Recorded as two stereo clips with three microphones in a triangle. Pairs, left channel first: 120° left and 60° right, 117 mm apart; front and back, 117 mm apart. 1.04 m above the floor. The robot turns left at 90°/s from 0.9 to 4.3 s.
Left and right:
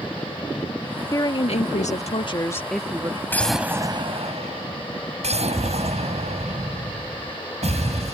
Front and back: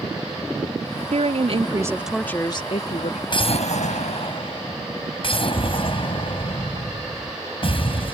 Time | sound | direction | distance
1.1 | a woman speaking | straight behind | ?
3.3 | an explosion | 50° left | ?